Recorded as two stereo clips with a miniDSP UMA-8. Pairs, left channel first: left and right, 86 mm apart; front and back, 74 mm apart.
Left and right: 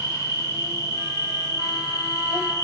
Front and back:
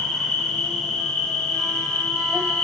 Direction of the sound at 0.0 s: 75° left.